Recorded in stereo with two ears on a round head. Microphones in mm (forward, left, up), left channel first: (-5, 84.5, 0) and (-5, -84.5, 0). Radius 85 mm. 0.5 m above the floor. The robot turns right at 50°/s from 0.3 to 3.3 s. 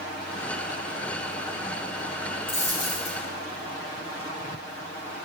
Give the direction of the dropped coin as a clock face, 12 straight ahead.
11 o'clock.